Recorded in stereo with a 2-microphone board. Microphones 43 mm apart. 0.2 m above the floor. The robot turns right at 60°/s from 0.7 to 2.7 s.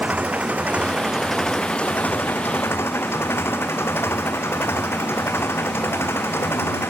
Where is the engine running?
35° right; by 6.9 s 85° left.